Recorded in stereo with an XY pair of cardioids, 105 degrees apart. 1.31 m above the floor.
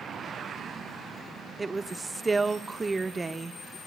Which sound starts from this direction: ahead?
A woman speaking, at 1.6 s.